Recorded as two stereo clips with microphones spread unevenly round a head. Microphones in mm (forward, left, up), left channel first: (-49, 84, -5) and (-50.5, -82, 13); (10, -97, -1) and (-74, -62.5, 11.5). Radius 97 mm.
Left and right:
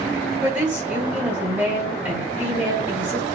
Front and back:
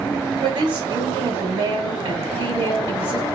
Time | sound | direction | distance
0.4 | a woman speaking | 175° right | 1.4 m